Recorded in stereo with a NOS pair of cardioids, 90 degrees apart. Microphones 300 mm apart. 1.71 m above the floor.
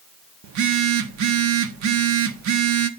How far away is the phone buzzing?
About 0.9 m.